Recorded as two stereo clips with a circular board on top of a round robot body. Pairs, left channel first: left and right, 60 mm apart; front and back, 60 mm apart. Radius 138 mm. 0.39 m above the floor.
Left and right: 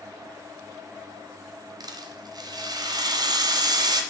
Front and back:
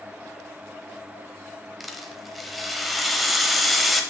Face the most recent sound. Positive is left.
turn(degrees=-90)